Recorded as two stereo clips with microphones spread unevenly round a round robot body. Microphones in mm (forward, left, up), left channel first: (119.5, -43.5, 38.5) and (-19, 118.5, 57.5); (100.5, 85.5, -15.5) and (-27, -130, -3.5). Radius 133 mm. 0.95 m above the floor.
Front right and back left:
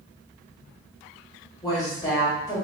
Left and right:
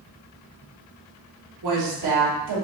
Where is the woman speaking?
125° right, 1.7 m.